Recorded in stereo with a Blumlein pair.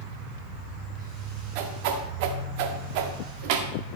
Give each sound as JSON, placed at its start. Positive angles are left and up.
{"t": 0.0, "sound": "a machine running", "azimuth_deg": -30, "distance_m": 5.5}
{"t": 1.6, "sound": "a whoosh", "azimuth_deg": -45, "distance_m": 1.6}